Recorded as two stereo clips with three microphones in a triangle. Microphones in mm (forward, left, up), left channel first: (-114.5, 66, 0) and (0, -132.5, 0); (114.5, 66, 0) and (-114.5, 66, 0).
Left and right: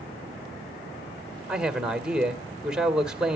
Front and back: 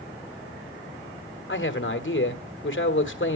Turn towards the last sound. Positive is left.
turn(degrees=25)